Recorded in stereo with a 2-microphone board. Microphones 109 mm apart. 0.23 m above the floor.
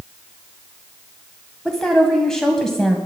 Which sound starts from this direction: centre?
A woman speaking, at 1.6 s.